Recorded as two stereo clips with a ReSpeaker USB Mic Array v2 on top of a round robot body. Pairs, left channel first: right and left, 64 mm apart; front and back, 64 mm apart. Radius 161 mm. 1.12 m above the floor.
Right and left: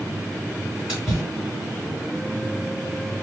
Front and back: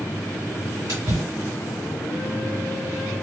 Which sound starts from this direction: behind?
A splash, at 0.9 s.